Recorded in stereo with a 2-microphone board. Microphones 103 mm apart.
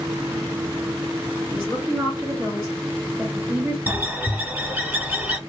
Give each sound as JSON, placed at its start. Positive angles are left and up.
{"t": 1.5, "sound": "a woman speaking", "side_deg": -20, "distance_m": 2.0}
{"t": 3.9, "sound": "a bird", "side_deg": -20, "distance_m": 0.8}